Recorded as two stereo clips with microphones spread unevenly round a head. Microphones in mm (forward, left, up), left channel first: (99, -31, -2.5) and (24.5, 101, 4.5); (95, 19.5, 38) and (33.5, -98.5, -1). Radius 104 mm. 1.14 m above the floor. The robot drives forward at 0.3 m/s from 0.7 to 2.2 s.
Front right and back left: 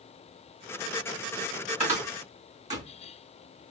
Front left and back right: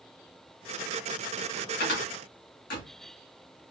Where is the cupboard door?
75° left, 2.5 m.